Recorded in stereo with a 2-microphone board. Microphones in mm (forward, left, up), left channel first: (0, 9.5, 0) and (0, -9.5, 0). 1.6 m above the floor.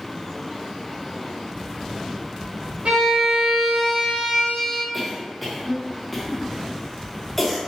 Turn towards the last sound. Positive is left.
turn(degrees=5)  # may be behind; listen again after turning